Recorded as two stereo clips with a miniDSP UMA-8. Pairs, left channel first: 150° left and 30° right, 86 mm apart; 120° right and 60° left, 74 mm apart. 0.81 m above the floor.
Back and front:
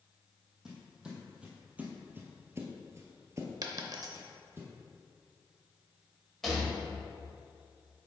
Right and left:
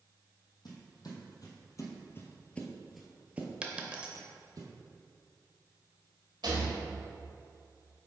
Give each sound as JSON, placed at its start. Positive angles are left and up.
{"t": 0.7, "sound": "footsteps", "azimuth_deg": -110, "distance_m": 1.9}
{"t": 3.6, "sound": "a dropped coin", "azimuth_deg": -10, "distance_m": 0.7}
{"t": 6.4, "sound": "a rattle", "azimuth_deg": 65, "distance_m": 1.3}